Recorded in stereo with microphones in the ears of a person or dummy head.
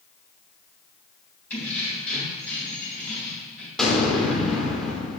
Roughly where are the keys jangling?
Centre.